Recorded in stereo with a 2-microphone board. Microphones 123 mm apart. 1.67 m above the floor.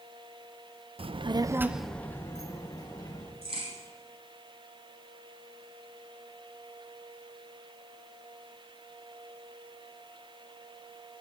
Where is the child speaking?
50° right (ahead or behind), 0.7 m; by 3.3 s 35° left (ahead or behind), 1.8 m.